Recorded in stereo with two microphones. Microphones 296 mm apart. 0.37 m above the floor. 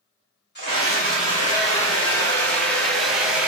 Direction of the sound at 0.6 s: 35° left (ahead or behind).